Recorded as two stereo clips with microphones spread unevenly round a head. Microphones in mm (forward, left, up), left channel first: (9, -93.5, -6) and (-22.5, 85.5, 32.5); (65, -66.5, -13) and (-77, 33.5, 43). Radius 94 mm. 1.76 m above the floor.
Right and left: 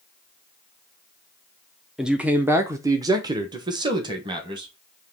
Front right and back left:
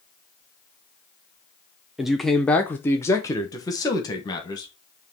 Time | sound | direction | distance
2.0 | a man speaking | 150° left | 0.7 m